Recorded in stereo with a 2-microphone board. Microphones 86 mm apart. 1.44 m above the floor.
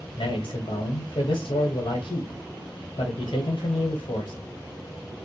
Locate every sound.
0.2 s a man speaking: 80° left, 0.9 m